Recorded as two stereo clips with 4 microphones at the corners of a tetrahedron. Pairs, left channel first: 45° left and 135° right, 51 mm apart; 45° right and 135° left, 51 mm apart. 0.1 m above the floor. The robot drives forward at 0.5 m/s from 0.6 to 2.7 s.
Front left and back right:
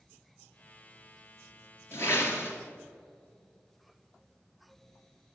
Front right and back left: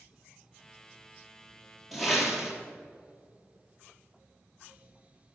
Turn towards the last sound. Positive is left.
turn(degrees=60)